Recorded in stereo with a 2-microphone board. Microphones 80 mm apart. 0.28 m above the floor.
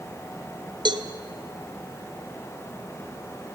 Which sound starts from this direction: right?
A cowbell, at 0.8 s.